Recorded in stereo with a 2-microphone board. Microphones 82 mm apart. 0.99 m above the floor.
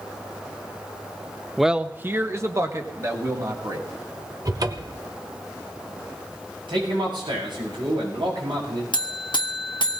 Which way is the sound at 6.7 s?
85° right.